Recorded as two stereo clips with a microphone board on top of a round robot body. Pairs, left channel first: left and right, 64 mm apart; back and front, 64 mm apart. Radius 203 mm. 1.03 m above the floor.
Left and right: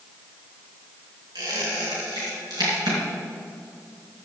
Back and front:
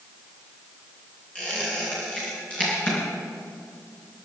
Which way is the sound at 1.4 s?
105° right.